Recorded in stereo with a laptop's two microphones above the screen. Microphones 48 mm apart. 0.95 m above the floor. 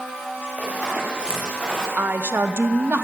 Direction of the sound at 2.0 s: 50° right (ahead or behind).